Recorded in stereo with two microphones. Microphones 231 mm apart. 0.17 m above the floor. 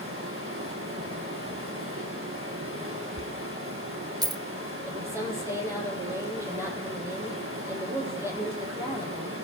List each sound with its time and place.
0.0 s running water: 65° right (ahead or behind), 9 m
3.2 s a dropped coin: 15° right (ahead or behind), 0.8 m
4.8 s a woman speaking: 10° right (ahead or behind), 6 m